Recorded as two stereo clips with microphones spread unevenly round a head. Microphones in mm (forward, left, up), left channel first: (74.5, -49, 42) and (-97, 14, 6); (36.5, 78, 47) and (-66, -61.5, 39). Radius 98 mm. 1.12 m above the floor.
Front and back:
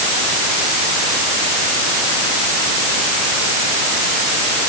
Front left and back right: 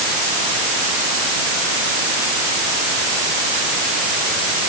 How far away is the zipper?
No zipper in this recording.